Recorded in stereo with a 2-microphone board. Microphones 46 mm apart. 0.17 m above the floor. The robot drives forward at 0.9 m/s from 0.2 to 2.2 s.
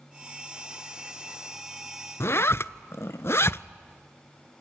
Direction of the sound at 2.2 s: 65° left (ahead or behind).